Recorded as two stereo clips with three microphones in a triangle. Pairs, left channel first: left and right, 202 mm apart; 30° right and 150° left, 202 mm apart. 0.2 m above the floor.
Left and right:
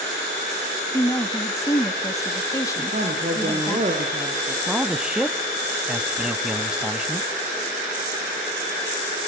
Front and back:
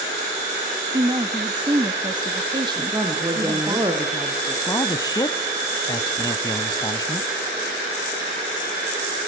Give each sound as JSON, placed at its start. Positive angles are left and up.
{"t": 0.9, "sound": "a woman speaking", "azimuth_deg": 135, "distance_m": 1.1}
{"t": 2.8, "sound": "a woman speaking", "azimuth_deg": -140, "distance_m": 3.0}
{"t": 4.7, "sound": "a man speaking", "azimuth_deg": -15, "distance_m": 1.0}